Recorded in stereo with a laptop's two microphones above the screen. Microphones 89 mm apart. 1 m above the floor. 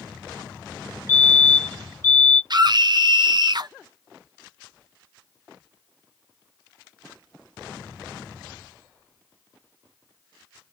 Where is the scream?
55° right (ahead or behind), 0.6 m.